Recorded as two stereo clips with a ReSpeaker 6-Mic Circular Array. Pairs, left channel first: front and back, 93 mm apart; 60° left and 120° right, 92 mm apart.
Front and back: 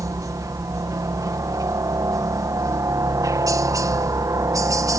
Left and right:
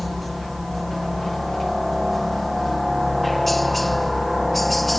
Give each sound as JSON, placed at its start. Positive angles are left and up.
{"t": 0.0, "sound": "a helicopter", "azimuth_deg": 150}